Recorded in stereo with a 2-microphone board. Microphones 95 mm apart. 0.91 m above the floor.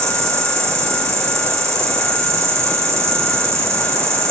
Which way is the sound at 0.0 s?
30° right (ahead or behind).